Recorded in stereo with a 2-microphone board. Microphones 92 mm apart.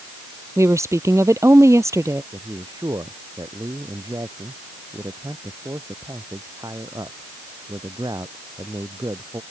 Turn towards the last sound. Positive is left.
turn(degrees=-45)  # may be behind; listen again after turning